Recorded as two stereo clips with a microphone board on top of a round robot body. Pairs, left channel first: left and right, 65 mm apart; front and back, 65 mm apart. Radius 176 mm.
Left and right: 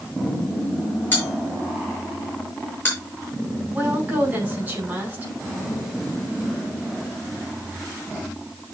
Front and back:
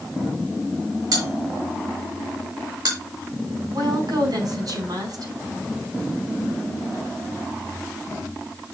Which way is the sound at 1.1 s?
155° left.